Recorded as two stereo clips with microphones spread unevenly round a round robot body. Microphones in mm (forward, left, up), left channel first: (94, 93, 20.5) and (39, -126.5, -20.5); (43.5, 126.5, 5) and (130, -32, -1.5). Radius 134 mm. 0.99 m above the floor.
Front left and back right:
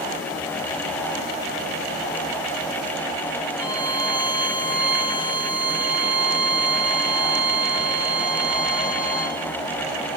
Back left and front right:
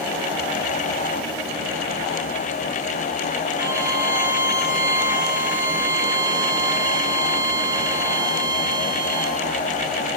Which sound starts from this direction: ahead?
A violin, at 3.6 s.